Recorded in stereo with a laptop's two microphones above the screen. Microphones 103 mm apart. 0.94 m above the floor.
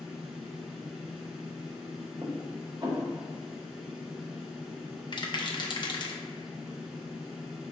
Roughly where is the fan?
Centre.